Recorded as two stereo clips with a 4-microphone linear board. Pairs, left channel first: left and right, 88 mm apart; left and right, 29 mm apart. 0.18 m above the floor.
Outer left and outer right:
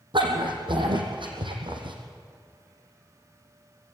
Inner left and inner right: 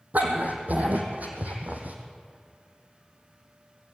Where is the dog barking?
65° right (ahead or behind), 3.5 m.